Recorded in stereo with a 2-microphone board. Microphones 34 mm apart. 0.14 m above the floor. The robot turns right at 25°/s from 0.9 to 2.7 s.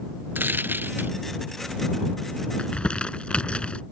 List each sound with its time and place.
0.3 s a dropped coin: 80° right; by 1.1 s 75° right (ahead or behind)
2.6 s crumpling: 30° left (ahead or behind)